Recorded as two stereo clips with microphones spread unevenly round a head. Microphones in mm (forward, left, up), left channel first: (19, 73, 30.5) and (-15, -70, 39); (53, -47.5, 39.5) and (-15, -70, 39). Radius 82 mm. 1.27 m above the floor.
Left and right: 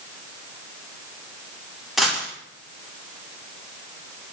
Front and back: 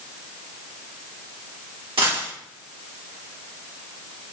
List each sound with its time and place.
2.0 s a dropped coin: 170° left, 1.8 m